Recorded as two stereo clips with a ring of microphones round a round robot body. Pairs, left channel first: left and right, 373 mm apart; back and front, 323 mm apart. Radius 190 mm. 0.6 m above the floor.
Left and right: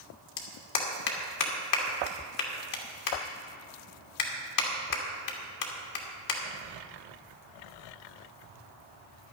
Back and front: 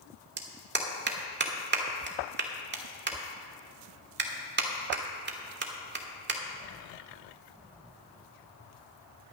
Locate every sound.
0.4 s a clap: 55° left, 1.5 m